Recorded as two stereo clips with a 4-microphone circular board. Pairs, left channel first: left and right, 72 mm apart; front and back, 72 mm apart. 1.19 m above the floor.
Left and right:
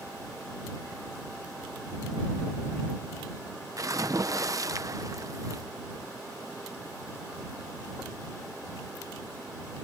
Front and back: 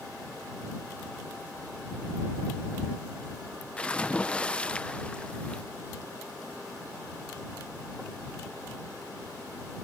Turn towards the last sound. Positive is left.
turn(degrees=-70)